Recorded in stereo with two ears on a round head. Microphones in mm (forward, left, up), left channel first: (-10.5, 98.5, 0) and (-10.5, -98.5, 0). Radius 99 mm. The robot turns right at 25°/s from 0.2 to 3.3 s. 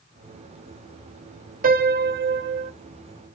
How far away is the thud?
No thud in this recording.